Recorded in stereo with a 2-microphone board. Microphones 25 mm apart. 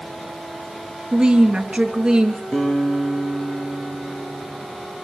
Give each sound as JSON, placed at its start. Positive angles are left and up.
{"t": 1.1, "sound": "a woman speaking", "side_deg": -35, "distance_m": 2.5}
{"t": 2.5, "sound": "a guitar", "side_deg": 70, "distance_m": 7.0}